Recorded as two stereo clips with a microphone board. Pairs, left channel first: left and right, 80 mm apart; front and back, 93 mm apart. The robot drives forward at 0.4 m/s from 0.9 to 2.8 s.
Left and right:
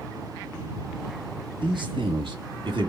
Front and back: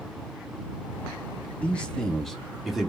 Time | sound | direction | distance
1.6 | a man speaking | 75° right | 1.6 m